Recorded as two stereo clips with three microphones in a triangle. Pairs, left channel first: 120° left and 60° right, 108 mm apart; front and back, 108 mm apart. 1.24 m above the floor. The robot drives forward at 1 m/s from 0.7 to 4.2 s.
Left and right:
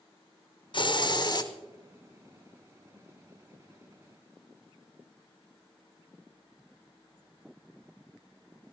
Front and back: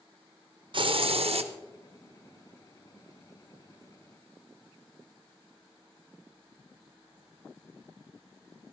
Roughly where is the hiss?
Behind left.